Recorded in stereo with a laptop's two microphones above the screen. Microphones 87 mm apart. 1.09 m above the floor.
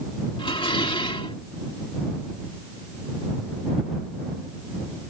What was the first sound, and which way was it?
Dishes clattering, 80° left.